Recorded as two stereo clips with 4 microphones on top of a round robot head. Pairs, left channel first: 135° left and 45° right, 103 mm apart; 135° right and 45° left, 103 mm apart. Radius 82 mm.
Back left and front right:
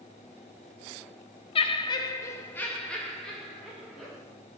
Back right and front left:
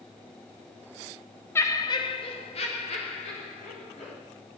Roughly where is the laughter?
Behind.